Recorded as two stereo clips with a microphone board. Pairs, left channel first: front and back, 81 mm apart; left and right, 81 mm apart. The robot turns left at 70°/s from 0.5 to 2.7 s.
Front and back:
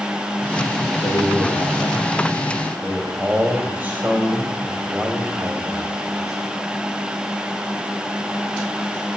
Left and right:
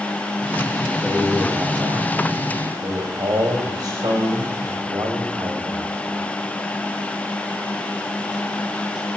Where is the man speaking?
5° left, 3.5 m; by 6.2 s 115° right, 3.5 m.